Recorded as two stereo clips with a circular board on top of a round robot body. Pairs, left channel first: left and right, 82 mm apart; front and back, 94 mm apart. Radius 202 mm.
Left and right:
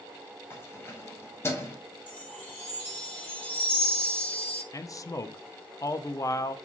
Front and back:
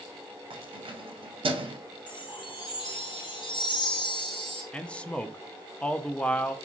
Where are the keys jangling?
150° left, 0.8 m.